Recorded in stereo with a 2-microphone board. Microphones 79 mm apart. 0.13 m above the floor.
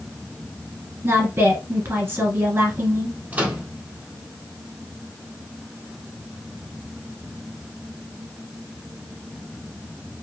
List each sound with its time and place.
1.0 s a woman speaking: 30° right (ahead or behind), 1.4 m
3.3 s a microwave: 20° right (ahead or behind), 0.9 m